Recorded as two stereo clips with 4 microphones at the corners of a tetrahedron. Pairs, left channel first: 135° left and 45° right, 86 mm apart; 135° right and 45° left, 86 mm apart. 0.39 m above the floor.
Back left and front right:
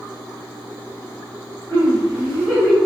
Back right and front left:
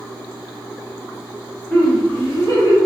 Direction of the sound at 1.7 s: 150° left.